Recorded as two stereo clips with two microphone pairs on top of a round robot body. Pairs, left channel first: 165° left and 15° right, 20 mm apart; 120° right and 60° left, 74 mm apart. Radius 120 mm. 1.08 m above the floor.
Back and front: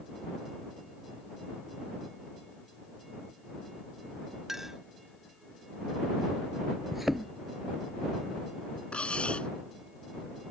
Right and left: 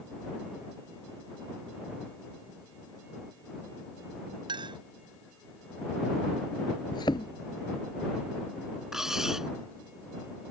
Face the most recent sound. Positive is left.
turn(degrees=145)